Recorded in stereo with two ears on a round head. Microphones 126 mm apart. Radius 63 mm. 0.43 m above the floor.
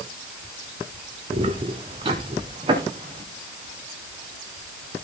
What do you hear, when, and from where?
1.3 s footsteps: 45° right (ahead or behind), 1.6 m; by 3.2 s 35° right (ahead or behind), 3.5 m